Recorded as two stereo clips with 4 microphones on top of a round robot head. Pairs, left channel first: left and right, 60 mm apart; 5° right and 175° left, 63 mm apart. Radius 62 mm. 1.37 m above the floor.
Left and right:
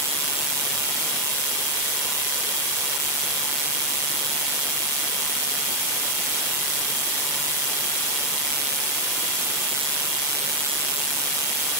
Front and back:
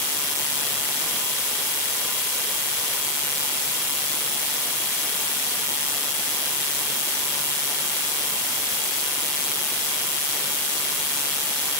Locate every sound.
Only background noise.